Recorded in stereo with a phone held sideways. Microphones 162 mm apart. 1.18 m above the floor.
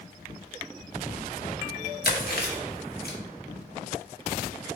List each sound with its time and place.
2.0 s chewing: 75° left (ahead or behind), 0.9 m